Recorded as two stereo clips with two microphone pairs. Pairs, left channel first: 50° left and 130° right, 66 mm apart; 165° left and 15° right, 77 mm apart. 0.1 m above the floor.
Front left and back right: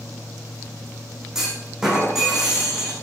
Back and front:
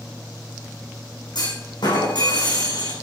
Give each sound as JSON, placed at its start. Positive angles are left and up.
{"t": 1.4, "sound": "a clunk", "azimuth_deg": 145, "distance_m": 5.5}